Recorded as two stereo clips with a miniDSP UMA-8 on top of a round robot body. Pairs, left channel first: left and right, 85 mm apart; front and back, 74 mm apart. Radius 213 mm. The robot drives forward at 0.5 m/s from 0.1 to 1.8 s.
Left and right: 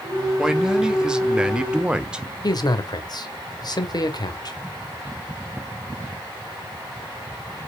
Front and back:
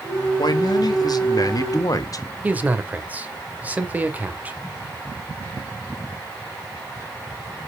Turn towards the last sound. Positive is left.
turn(degrees=115)